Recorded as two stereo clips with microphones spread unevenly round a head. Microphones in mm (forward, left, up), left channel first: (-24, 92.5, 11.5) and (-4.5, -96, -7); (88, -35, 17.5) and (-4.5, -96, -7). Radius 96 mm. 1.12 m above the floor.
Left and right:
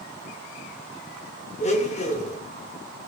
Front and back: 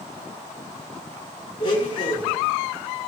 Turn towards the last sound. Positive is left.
turn(degrees=55)